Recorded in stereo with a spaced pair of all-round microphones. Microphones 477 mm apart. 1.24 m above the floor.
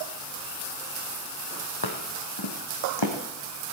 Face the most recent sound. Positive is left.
turn(degrees=65)  # may be behind; listen again after turning